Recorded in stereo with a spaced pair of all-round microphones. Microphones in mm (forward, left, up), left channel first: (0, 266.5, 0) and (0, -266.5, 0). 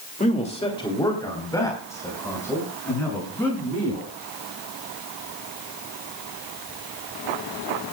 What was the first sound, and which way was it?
A man speaking, 15° left (ahead or behind).